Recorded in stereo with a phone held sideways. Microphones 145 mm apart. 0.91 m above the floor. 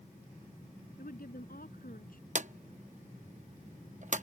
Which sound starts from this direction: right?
A drawer, at 2.4 s.